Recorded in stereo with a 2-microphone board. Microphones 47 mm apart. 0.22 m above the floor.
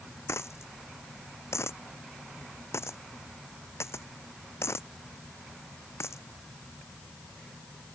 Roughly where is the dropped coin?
Left.